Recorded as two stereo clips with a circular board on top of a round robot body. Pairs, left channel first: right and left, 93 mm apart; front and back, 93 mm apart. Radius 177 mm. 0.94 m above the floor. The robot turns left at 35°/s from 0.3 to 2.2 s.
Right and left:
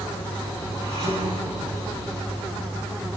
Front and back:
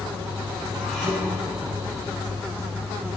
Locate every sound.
0.8 s dishes clattering: 90° left, 6 m; by 2.1 s 45° left, 6 m